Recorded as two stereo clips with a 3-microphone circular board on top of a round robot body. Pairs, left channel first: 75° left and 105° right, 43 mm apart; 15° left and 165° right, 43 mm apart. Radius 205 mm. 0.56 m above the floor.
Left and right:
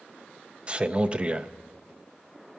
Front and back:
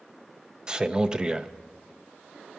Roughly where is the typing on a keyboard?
I don't hear typing on a keyboard.